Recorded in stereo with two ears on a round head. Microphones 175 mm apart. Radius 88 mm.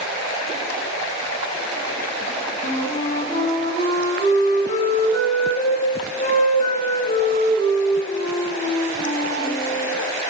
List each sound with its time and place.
2.6 s a flute: 40° left (ahead or behind), 5 m